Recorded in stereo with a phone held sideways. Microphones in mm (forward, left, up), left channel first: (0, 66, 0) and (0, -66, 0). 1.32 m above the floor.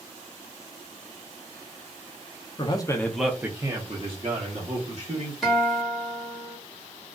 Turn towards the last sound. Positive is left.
turn(degrees=0)  # may be behind; listen again after turning